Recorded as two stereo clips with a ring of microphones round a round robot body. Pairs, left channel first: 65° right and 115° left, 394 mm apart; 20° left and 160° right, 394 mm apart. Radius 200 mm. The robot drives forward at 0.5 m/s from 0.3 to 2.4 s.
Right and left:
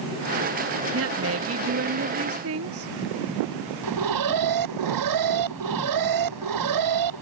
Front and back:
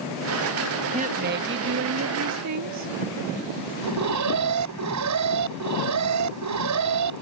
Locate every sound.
0.9 s a woman speaking: 140° left; by 2.9 s 160° left
3.8 s an alarm: 155° left